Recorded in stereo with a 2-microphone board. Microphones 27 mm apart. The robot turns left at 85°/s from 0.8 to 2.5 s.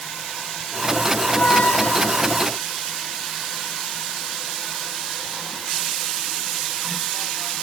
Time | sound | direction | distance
1.2 | a squeak | 145° left | ?